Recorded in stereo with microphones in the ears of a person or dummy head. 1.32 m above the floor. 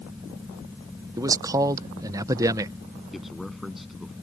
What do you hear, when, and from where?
0.0 s a fan: 15° right (ahead or behind)
1.2 s a man speaking: 25° right (ahead or behind)
3.1 s a man speaking: 5° left (ahead or behind)